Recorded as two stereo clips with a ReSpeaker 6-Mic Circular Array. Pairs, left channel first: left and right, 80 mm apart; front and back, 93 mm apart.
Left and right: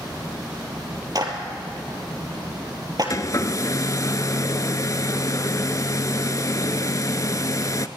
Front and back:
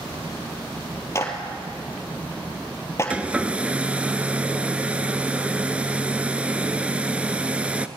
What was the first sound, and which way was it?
A clap, 55° right.